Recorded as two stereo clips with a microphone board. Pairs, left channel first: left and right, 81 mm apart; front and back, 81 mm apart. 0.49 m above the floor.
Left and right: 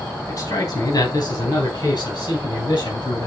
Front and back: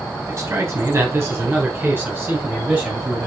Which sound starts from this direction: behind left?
A man speaking, at 0.3 s.